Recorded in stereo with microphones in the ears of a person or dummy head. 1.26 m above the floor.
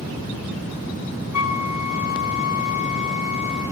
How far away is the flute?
About 2.5 m.